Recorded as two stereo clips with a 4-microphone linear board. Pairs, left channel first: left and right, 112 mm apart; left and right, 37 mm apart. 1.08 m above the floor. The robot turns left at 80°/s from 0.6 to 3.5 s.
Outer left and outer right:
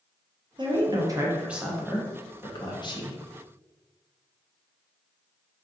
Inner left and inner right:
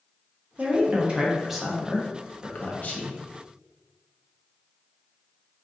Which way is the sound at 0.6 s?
45° right (ahead or behind).